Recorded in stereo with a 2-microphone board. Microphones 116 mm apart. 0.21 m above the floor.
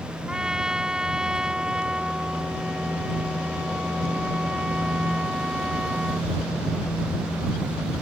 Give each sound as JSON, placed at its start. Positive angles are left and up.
{"t": 0.3, "sound": "a trumpet", "side_deg": -5}